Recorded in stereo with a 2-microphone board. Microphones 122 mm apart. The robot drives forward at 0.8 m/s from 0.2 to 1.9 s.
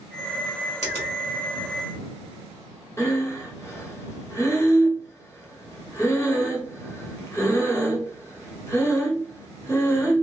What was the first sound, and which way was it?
A finger snap, 65° left (ahead or behind).